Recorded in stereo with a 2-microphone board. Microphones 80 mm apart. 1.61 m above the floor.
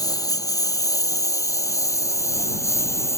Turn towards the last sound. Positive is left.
turn(degrees=35)  # may be behind; listen again after turning